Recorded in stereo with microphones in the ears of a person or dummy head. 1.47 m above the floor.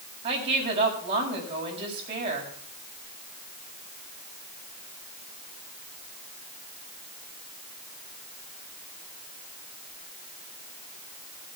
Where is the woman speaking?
35° right (ahead or behind), 6.5 m.